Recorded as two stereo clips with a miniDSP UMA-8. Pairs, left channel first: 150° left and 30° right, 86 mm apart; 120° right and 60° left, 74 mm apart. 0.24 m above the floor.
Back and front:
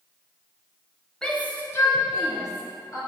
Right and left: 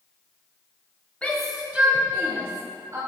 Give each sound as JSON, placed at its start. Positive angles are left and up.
{"t": 1.2, "sound": "a shout", "azimuth_deg": -150, "distance_m": 1.0}